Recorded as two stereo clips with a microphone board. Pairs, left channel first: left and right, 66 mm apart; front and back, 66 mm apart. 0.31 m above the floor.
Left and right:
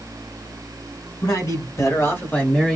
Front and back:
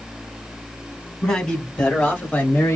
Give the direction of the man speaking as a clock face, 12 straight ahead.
9 o'clock.